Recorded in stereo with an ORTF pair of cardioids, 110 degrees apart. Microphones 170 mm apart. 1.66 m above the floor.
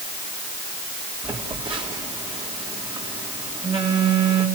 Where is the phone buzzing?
30° right, 4 m.